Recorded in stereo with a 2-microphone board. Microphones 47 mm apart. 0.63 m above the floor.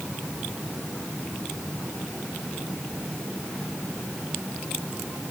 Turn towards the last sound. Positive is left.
No sound to turn to.